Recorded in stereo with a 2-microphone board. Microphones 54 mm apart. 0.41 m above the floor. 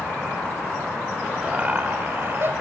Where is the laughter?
20° right (ahead or behind), 1.2 m; by 2.5 s 45° right (ahead or behind), 2 m.